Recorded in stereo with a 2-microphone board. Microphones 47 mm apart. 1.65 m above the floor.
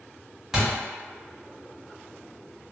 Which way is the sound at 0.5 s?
10° right (ahead or behind).